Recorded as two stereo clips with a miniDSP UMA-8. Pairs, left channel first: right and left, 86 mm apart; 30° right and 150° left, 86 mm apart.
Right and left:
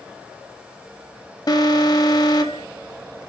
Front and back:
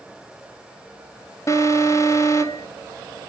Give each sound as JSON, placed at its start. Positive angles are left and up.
{"t": 1.5, "sound": "an alarm", "azimuth_deg": -70, "distance_m": 1.1}